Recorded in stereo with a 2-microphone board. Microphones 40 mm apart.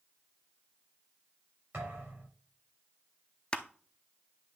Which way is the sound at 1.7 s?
60° right (ahead or behind).